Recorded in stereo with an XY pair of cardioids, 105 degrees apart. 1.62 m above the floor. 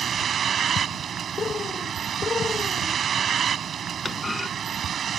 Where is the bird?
40° left.